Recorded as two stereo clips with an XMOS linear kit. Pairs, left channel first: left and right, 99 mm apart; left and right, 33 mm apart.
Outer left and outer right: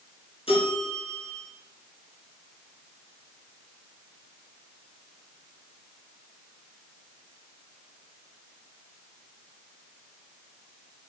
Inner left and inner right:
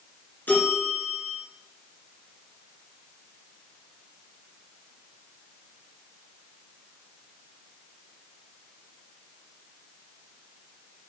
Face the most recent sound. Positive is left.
turn(degrees=60)  # may be behind; listen again after turning